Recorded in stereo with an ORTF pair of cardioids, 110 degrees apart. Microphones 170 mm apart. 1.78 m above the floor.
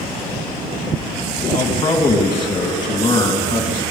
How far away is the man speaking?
About 3 m.